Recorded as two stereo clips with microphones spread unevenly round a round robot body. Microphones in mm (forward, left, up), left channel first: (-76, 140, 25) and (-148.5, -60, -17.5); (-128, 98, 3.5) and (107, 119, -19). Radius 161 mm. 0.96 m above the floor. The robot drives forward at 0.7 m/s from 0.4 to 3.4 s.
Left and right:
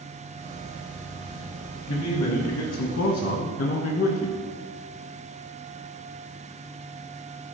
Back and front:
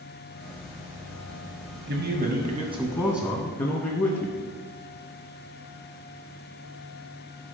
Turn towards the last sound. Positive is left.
turn(degrees=120)